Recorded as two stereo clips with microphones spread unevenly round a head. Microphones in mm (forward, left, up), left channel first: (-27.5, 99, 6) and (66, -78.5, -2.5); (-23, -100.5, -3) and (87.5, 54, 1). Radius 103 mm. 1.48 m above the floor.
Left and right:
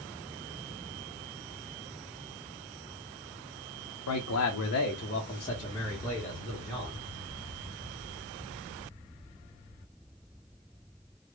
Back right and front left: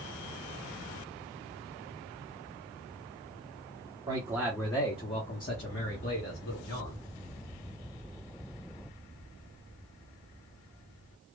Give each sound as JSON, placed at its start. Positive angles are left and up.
{"t": 4.1, "sound": "a man speaking", "azimuth_deg": 125, "distance_m": 0.7}